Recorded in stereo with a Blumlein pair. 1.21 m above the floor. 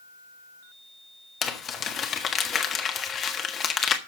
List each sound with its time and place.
1.4 s crumpling: 25° left, 1.5 m